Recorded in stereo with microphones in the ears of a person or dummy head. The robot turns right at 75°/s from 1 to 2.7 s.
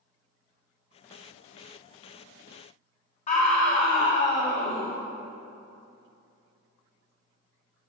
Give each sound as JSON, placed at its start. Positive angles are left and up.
{"t": 3.3, "sound": "a scream", "side_deg": 35, "distance_m": 1.0}